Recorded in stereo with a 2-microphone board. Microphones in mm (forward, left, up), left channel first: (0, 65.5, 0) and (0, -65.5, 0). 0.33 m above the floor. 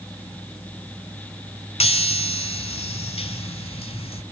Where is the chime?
50° left (ahead or behind), 0.8 m.